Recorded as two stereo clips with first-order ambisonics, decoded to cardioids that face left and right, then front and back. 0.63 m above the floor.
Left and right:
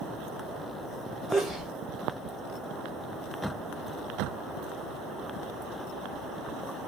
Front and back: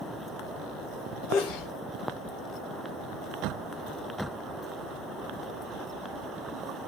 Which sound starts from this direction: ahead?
A sneeze, at 1.3 s.